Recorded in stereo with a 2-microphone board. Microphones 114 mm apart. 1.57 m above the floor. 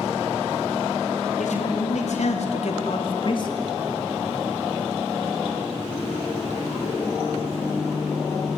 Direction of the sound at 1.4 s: 85° left.